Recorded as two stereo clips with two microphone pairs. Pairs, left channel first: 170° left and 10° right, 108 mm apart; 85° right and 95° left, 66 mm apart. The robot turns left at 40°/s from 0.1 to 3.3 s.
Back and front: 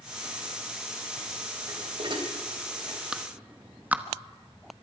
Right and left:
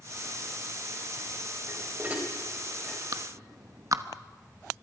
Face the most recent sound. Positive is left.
turn(degrees=65)